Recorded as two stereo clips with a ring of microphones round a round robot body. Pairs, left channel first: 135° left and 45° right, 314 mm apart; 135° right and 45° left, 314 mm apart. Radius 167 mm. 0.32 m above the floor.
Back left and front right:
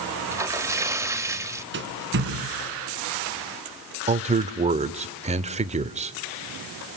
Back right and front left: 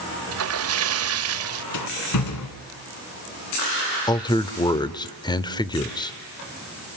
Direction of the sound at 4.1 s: 80° right.